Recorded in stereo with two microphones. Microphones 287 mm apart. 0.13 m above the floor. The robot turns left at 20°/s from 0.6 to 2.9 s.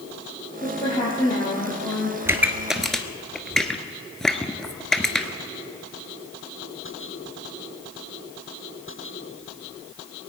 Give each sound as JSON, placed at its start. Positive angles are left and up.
{"t": 0.6, "sound": "a woman speaking", "azimuth_deg": 30, "distance_m": 4.0}
{"t": 2.2, "sound": "a pop", "side_deg": -10, "distance_m": 1.0}